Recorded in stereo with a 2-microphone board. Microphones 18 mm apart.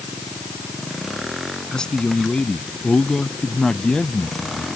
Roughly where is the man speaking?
Left.